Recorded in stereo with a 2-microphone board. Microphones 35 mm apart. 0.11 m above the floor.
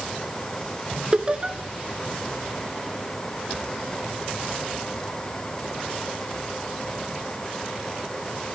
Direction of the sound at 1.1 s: 30° right (ahead or behind).